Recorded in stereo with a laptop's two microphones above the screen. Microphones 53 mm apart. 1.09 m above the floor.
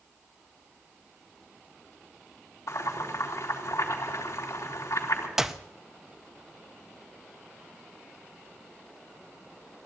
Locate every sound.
2.7 s boiling: 85° left, 3.5 m
5.4 s a clap: 10° right (ahead or behind), 0.6 m